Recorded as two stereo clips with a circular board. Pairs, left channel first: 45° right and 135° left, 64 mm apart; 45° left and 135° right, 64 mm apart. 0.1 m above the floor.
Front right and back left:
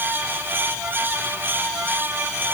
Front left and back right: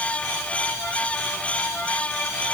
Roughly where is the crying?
I don't hear crying.